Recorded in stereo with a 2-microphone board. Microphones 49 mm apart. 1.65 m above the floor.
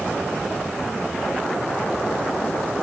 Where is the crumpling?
No crumpling in this recording.